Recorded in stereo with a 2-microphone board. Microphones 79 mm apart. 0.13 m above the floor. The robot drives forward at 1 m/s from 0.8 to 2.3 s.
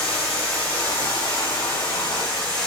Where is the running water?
20° left (ahead or behind), 5.5 m; by 2.7 s 15° left (ahead or behind), 7 m.